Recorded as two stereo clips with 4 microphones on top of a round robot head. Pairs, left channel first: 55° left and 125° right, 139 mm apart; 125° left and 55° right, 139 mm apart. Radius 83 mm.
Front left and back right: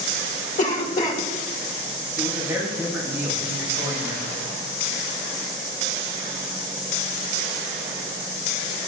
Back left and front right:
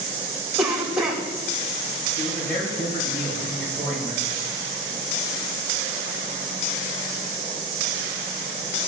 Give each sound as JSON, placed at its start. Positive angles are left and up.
{"t": 0.6, "sound": "a cough", "azimuth_deg": 30, "distance_m": 2.5}
{"t": 2.2, "sound": "a man speaking", "azimuth_deg": 160, "distance_m": 4.0}